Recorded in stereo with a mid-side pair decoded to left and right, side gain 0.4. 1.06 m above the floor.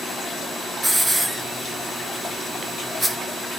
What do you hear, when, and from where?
0.8 s a hiss: 15° right, 1.3 m